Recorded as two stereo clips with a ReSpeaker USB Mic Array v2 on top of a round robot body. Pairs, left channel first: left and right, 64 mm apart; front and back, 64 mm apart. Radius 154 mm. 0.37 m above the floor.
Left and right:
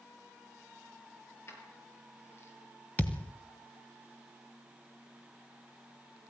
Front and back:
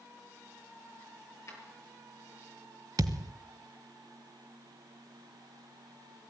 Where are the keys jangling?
40° left, 7.5 m; by 2.5 s 45° left, 7 m.